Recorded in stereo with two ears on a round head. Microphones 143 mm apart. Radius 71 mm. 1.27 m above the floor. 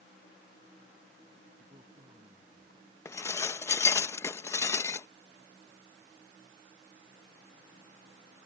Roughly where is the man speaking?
Right.